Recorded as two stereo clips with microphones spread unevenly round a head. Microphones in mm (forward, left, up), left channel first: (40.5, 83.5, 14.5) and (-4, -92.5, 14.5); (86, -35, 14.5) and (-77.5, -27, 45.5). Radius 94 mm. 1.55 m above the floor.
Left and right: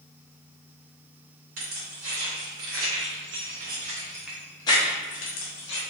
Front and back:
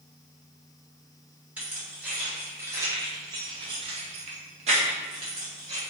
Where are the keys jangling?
105° right, 1.6 m; by 5.8 s 110° left, 1.0 m.